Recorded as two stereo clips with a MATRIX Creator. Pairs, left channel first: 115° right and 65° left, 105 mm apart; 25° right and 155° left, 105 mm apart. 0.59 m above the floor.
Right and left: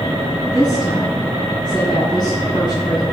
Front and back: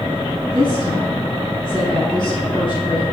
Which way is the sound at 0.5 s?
65° right.